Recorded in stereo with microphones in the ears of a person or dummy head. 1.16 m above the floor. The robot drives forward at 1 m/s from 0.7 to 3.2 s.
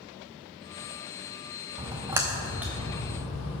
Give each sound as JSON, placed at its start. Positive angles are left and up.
{"t": 1.8, "sound": "a splash", "side_deg": -25, "distance_m": 0.6}